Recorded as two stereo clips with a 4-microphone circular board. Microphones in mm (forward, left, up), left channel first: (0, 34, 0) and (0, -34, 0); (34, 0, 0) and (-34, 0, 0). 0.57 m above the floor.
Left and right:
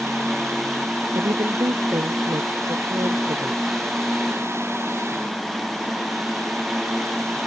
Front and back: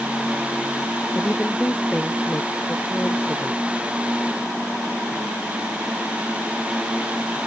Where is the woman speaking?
75° right.